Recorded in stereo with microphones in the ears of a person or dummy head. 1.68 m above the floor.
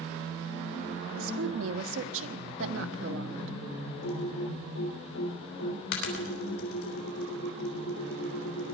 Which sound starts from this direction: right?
A woman speaking, at 1.2 s.